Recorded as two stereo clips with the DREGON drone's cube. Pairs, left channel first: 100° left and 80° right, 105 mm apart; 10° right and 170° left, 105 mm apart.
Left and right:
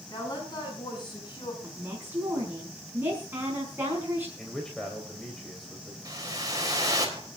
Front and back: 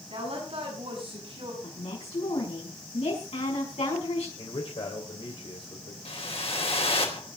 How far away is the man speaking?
About 3.5 m.